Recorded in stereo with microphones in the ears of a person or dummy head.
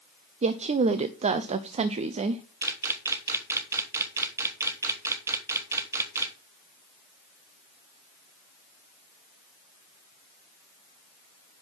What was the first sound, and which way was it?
A woman speaking, 30° right (ahead or behind).